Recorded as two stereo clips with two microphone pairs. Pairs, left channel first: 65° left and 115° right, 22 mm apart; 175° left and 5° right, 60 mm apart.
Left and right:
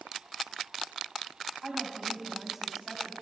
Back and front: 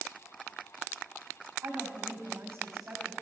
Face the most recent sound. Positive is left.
turn(degrees=-45)